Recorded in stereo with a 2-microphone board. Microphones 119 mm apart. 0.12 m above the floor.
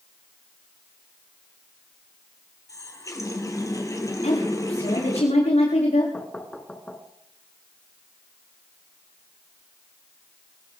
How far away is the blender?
No blender in this recording.